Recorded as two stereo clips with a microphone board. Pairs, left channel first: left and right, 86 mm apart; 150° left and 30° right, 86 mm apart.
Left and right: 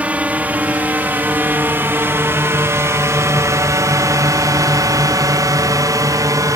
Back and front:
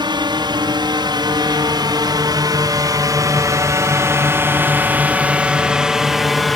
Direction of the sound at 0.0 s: 15° right.